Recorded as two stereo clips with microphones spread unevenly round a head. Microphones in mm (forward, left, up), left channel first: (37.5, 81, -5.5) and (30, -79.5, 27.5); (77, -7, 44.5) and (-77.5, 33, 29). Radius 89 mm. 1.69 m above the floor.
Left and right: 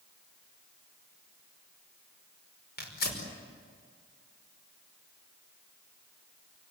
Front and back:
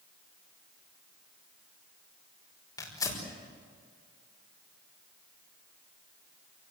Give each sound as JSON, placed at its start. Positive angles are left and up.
{"t": 2.8, "sound": "tearing paper", "azimuth_deg": 55, "distance_m": 5.0}